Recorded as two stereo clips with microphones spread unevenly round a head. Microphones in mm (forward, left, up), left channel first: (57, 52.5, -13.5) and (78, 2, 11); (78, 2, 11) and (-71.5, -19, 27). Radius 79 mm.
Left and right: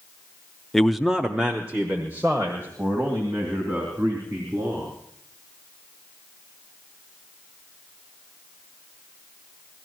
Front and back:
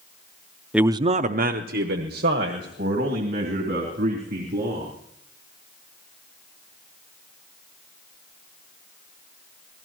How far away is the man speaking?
About 0.5 m.